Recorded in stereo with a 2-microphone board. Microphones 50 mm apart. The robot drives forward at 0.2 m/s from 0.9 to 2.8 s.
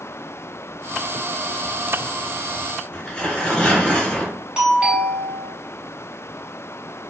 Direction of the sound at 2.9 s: 10° left (ahead or behind).